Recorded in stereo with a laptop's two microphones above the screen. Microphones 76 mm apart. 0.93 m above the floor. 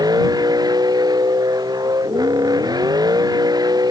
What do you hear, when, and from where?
0.0 s a vehicle: 65° right (ahead or behind)